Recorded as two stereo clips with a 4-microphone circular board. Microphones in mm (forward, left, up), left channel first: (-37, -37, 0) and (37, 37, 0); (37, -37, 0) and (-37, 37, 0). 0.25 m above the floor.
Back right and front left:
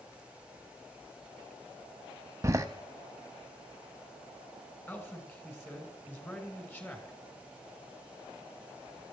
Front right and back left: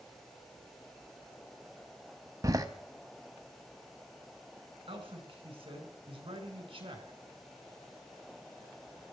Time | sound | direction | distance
2.4 | a door slam | 95° left | 0.8 m
4.9 | a man speaking | 155° left | 2.5 m